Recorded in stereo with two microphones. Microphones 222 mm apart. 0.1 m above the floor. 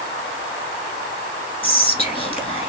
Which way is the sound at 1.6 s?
25° left (ahead or behind).